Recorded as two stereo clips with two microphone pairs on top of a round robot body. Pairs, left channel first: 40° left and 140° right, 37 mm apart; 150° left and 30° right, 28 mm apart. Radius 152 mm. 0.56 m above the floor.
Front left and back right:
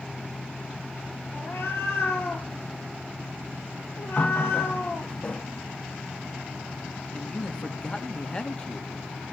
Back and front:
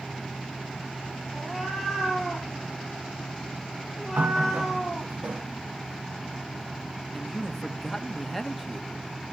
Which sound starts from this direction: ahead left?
A cat meowing, at 1.3 s.